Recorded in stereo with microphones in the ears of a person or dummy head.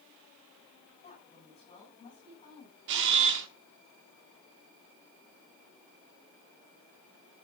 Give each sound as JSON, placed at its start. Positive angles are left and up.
{"t": 1.0, "sound": "a woman speaking", "side_deg": 30, "distance_m": 7.5}
{"t": 2.9, "sound": "a camera shutter", "side_deg": -60, "distance_m": 1.4}